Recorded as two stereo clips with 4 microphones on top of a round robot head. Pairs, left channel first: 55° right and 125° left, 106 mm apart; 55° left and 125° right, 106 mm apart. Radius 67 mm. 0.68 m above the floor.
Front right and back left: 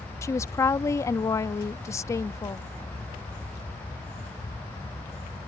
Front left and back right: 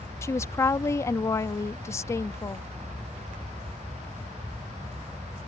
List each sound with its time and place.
0.2 s a woman speaking: straight ahead